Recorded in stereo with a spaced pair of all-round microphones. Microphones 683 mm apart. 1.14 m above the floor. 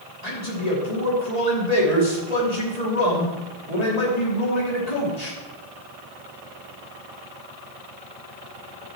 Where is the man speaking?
70° left (ahead or behind), 3 m.